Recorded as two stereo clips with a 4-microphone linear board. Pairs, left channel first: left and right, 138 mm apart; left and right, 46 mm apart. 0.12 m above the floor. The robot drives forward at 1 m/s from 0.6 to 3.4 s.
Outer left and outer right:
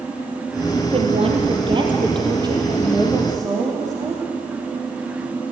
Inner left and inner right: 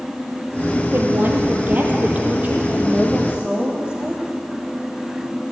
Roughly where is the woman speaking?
Right.